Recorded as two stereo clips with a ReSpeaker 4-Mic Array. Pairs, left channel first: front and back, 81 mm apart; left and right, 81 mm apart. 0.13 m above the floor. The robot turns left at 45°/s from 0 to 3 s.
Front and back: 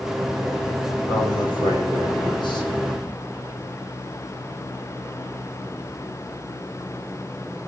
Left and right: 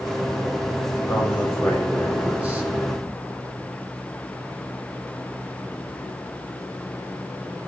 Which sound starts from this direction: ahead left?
A man speaking, at 1.1 s.